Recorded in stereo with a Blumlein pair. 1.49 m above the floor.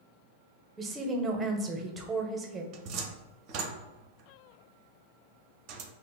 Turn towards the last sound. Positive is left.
turn(degrees=-40)